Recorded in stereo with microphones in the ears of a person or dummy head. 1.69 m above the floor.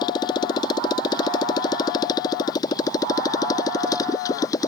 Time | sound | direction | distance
0.0 | a motorcycle | 25° left (ahead or behind) | ?